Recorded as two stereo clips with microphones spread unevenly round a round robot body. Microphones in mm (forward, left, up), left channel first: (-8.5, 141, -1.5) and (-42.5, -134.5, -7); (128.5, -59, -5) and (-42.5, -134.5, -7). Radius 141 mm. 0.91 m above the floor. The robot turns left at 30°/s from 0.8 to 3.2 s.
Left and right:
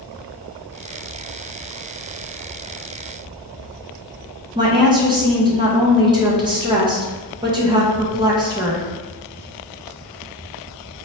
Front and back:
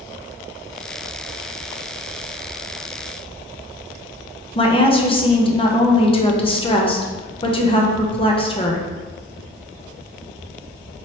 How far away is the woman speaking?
About 0.8 m.